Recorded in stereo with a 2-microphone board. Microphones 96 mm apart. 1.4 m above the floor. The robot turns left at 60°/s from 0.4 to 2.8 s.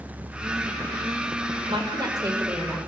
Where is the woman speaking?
110° right, 5.5 m; by 2.8 s 175° right, 5.5 m.